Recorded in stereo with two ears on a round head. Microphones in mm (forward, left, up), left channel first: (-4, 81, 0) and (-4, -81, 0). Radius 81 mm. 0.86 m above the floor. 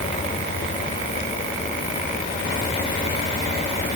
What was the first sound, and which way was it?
Only background noise.